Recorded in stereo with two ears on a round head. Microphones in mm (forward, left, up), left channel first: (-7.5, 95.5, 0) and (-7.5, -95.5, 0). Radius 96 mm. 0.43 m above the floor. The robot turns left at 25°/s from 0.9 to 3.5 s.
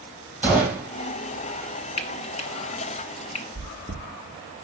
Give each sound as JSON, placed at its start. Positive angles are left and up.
{"t": 0.4, "sound": "a gunshot", "side_deg": -10, "distance_m": 2.0}
{"t": 2.0, "sound": "frying", "side_deg": 30, "distance_m": 0.9}
{"t": 3.5, "sound": "chewing", "side_deg": -15, "distance_m": 2.0}